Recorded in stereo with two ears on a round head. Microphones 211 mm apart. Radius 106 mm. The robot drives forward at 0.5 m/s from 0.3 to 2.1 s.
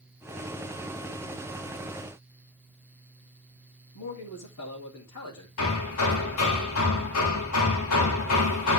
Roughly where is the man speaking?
Left.